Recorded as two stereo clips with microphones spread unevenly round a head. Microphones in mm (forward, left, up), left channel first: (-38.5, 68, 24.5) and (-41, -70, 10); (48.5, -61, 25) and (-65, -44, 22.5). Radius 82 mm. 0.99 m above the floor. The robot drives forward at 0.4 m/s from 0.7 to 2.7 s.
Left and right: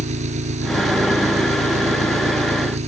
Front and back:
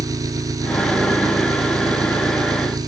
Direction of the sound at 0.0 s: 130° right.